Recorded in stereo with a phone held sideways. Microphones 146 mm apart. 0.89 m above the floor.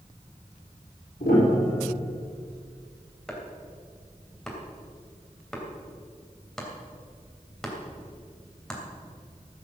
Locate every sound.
1.2 s a piano: 75° left (ahead or behind), 5.5 m
3.3 s chopping: 5° left (ahead or behind), 3 m